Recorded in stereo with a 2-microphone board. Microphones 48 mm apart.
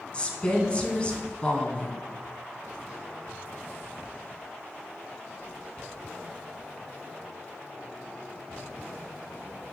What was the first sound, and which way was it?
A woman speaking, 25° left (ahead or behind).